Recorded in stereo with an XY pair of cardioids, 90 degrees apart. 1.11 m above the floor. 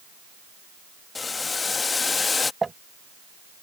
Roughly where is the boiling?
Ahead left.